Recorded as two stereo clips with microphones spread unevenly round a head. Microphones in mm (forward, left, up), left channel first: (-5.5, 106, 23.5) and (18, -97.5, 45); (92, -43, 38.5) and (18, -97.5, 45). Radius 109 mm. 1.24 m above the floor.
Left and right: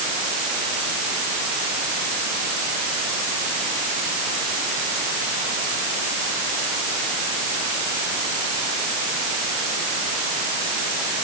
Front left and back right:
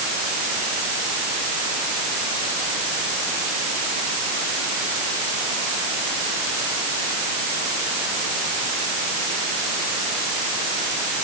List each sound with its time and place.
Only background noise.